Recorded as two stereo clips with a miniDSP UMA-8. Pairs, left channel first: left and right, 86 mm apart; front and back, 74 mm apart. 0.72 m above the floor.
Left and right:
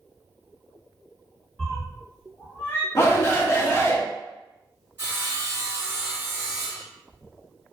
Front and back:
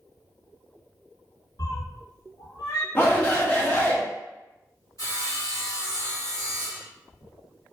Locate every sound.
1.6 s a cat meowing: 10° left, 1.4 m; by 2.9 s 35° left, 0.9 m
3.0 s a shout: 50° left, 0.8 m
5.0 s sawing: 30° right, 1.7 m